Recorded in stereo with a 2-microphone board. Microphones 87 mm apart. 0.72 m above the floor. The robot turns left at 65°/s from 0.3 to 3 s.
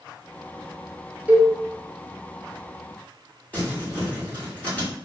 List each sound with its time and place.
1.3 s a cowbell: 20° right (ahead or behind), 0.5 m; by 1.5 s 25° right (ahead or behind), 0.5 m
3.5 s crumpling: 15° left (ahead or behind), 1.6 m